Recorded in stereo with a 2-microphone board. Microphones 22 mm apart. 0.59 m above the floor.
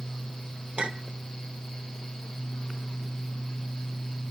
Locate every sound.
0.8 s a clink: 70° right (ahead or behind), 0.8 m